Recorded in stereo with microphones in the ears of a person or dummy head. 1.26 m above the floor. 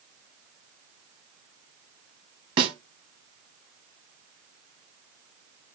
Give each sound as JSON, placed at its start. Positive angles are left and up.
{"t": 2.6, "sound": "a snare drum", "side_deg": -25, "distance_m": 1.1}